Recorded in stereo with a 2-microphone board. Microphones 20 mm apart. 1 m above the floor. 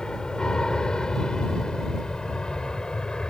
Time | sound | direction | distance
0.0 | an aircraft | 40° left (ahead or behind) | ?